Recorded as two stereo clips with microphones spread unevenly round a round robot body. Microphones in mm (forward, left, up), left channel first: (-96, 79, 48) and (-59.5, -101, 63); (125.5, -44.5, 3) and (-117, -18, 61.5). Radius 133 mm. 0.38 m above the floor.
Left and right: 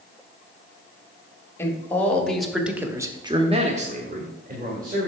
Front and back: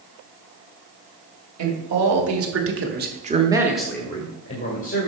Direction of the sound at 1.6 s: 175° left.